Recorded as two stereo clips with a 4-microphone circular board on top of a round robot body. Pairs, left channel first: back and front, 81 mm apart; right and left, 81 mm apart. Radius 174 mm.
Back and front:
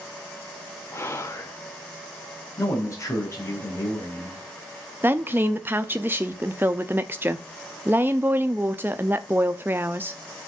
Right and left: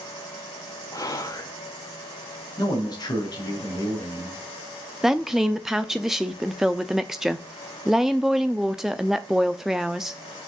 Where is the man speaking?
130° right, 4 m.